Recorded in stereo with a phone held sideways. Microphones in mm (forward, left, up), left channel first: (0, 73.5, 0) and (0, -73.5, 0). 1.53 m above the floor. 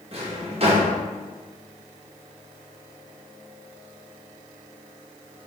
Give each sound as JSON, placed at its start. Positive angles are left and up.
{"t": 0.1, "sound": "a drawer", "side_deg": -40, "distance_m": 0.9}